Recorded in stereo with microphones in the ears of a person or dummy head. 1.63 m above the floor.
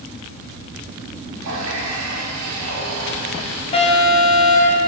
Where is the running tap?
70° right (ahead or behind), 2.5 m.